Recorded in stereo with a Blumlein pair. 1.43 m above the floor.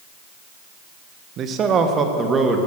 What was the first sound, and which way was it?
A man speaking, 30° right.